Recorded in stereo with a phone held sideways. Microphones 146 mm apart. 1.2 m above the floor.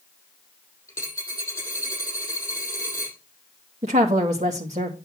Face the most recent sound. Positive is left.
turn(degrees=-50)  # may be behind; listen again after turning